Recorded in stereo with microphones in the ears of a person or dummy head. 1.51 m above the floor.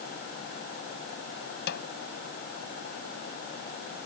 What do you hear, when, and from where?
1.7 s a snare drum: 60° left (ahead or behind)